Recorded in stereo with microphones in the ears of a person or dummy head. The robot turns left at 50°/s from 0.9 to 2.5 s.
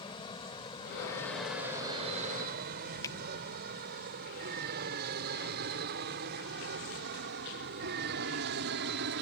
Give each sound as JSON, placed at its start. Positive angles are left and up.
{"t": 0.0, "sound": "an aircraft", "side_deg": 30}
{"t": 3.0, "sound": "a finger snap", "side_deg": 20}